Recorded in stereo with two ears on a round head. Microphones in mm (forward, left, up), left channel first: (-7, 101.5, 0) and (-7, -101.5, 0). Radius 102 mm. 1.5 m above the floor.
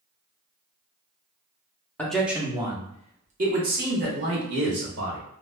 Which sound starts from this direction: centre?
A man speaking, at 2.0 s.